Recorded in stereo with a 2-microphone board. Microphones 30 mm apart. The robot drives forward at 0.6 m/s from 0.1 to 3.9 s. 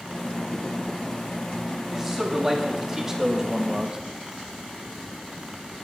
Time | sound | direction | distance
1.9 | a man speaking | 15° right (ahead or behind) | 1.9 m